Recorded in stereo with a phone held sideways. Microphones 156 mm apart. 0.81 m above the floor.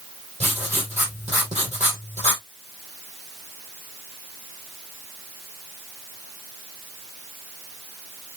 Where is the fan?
I don't hear a fan.